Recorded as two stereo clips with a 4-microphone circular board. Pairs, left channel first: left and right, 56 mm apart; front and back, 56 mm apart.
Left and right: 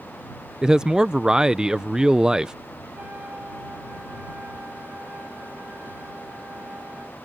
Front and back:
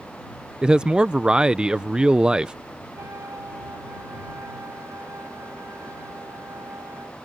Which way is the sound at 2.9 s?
150° right.